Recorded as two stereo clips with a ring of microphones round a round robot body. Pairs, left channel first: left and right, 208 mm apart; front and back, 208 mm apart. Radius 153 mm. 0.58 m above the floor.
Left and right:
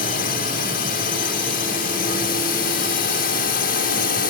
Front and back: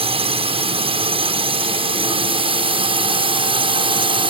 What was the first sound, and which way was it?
A drone, 125° left.